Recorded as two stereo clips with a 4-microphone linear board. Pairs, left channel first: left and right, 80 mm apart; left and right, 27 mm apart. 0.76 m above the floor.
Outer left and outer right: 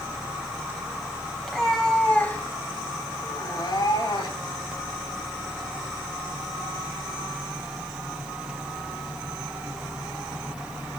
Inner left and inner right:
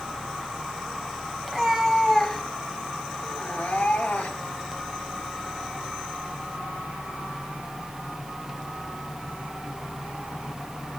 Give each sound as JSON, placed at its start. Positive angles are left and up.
{"t": 1.4, "sound": "a cat meowing", "side_deg": 5, "distance_m": 2.5}